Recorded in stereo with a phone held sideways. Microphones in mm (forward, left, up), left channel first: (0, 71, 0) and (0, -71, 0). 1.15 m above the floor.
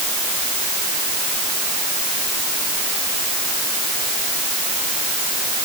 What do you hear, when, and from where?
Only background noise.